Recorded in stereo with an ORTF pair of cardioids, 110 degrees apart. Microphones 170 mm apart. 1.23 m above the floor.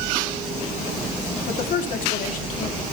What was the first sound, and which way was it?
A woman speaking, 60° left.